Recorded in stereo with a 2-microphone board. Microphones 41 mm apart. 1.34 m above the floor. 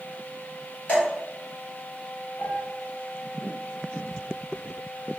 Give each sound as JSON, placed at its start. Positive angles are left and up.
{"t": 0.9, "sound": "dripping", "side_deg": 35, "distance_m": 1.6}
{"t": 2.4, "sound": "a piano", "side_deg": 45, "distance_m": 1.5}